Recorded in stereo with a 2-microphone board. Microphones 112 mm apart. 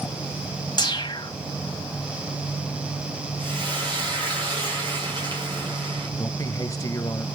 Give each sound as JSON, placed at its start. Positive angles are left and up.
{"t": 0.8, "sound": "a whoosh", "side_deg": 45, "distance_m": 1.5}
{"t": 3.4, "sound": "frying", "side_deg": -45, "distance_m": 8.0}
{"t": 6.2, "sound": "a man speaking", "side_deg": 30, "distance_m": 1.0}